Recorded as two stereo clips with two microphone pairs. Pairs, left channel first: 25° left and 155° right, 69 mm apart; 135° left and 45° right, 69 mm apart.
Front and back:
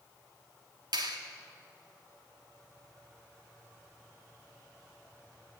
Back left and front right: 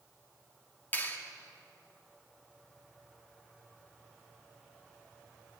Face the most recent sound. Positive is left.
turn(degrees=-165)